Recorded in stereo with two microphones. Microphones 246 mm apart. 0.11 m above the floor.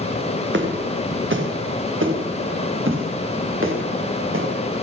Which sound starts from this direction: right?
Footsteps, at 0.5 s.